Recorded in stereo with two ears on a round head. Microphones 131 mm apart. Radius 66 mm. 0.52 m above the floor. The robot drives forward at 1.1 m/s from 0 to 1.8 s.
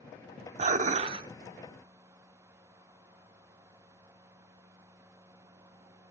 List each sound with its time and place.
0.6 s dishes clattering: 45° right (ahead or behind), 0.6 m; by 1.3 s 30° right (ahead or behind), 0.8 m